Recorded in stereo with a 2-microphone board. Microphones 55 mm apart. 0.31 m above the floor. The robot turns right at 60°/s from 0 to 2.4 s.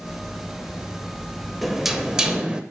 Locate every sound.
1.6 s knocking: centre (ahead or behind), 0.5 m; by 2.6 s 15° right (ahead or behind), 0.5 m